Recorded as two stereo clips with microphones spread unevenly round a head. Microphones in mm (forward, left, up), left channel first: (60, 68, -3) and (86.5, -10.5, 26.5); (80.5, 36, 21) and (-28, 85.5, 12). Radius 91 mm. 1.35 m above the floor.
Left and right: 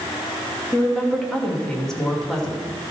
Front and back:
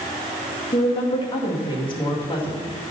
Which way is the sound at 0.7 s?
25° left.